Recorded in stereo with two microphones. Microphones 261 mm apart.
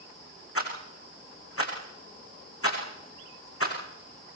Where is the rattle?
60° left (ahead or behind), 5.5 m.